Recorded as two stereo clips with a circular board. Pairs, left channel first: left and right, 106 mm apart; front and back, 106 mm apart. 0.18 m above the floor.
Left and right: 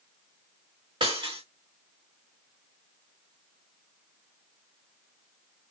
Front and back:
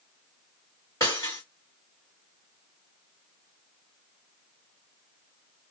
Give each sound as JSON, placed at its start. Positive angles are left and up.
{"t": 1.0, "sound": "breaking glass", "azimuth_deg": -60, "distance_m": 2.5}